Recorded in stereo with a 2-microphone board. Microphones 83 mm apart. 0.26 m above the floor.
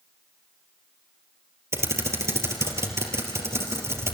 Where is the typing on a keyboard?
35° right (ahead or behind), 3.5 m.